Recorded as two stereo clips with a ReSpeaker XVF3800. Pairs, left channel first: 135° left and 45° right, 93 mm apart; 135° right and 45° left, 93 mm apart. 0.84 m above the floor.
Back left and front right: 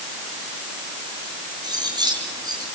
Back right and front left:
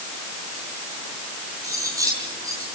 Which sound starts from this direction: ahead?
Cutlery clinking, at 1.6 s.